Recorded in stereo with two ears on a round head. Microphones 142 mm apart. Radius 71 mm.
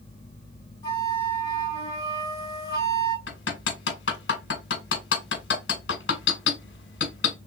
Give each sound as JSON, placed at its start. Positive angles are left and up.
{"t": 0.8, "sound": "a flute", "side_deg": 20, "distance_m": 2.5}
{"t": 3.3, "sound": "hammering", "side_deg": 85, "distance_m": 1.5}